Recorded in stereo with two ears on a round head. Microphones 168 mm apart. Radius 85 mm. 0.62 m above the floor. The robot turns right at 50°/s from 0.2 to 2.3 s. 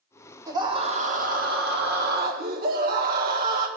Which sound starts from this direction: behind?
A scream, at 0.5 s.